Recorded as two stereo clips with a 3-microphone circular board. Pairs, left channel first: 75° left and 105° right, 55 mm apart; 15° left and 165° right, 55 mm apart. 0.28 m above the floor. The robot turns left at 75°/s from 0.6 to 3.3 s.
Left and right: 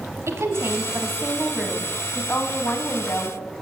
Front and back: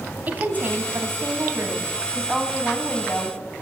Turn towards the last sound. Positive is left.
turn(degrees=45)